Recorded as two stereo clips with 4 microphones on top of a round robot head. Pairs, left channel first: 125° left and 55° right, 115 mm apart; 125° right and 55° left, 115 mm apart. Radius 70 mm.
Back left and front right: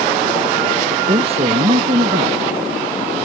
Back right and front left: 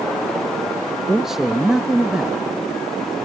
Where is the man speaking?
30° right.